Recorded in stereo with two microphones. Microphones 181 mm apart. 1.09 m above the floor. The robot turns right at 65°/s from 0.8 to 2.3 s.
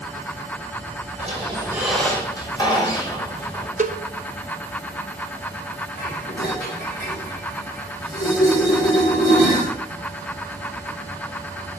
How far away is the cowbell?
About 0.6 m.